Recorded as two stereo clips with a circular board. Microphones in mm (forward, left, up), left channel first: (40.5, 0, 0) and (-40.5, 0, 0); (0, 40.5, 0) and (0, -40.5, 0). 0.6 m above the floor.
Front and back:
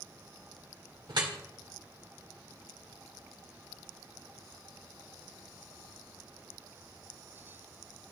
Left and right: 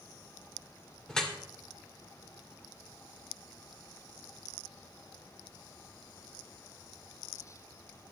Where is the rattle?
I don't hear a rattle.